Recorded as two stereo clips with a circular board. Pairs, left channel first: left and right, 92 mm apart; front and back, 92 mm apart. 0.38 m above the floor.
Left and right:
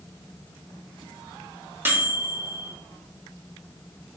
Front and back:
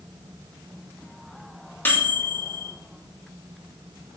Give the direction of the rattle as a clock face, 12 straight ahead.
I don't hear a rattle.